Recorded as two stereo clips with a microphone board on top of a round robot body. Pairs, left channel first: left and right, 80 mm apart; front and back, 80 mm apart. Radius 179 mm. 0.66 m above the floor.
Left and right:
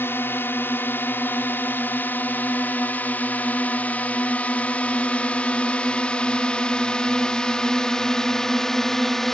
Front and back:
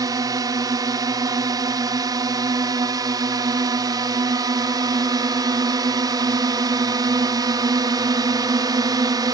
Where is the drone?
150° left; by 9.3 s 175° left.